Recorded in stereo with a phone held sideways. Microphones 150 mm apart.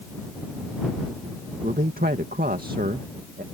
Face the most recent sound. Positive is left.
turn(degrees=-80)